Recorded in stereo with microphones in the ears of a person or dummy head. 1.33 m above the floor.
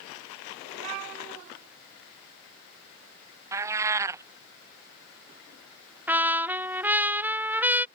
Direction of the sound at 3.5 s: 15° right (ahead or behind).